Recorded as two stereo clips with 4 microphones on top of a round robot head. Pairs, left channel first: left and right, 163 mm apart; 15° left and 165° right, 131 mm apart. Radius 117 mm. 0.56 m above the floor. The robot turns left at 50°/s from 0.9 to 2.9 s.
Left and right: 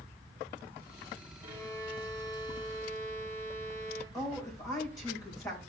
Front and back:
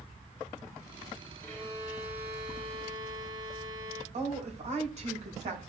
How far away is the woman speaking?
About 3.5 m.